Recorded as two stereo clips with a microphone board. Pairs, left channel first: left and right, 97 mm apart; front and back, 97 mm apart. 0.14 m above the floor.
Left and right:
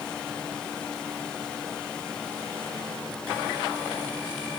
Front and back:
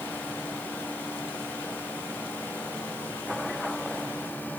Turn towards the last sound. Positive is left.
No sound to turn to.